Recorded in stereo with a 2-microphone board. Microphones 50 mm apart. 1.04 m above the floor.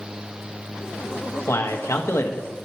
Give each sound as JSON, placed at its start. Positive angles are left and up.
{"t": 1.5, "sound": "a man speaking", "side_deg": 65, "distance_m": 0.9}